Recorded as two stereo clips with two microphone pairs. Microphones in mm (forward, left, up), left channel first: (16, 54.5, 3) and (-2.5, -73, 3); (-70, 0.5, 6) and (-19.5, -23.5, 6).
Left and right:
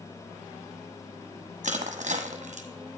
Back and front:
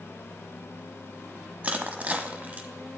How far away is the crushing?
About 1.1 m.